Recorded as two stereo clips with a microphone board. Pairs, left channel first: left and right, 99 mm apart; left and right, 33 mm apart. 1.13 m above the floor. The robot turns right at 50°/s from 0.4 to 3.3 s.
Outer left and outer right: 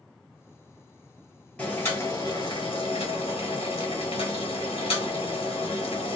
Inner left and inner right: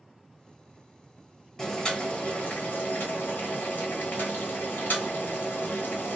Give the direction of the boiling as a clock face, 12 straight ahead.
12 o'clock.